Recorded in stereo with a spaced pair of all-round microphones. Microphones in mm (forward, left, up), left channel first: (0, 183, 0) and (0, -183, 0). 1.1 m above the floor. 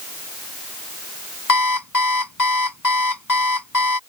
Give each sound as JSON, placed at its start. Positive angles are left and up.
{"t": 1.5, "sound": "an alarm clock", "side_deg": 55}